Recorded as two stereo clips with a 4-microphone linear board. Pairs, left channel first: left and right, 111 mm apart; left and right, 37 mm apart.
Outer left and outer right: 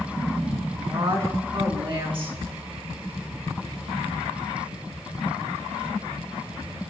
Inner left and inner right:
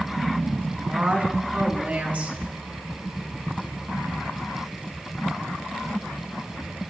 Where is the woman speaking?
50° right (ahead or behind), 4 m.